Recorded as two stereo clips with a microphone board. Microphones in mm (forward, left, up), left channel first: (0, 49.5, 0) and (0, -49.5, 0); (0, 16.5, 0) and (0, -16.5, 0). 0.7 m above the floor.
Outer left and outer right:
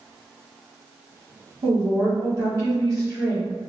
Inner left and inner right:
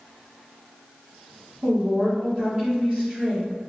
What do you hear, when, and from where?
1.6 s a woman speaking: 40° right (ahead or behind), 1.4 m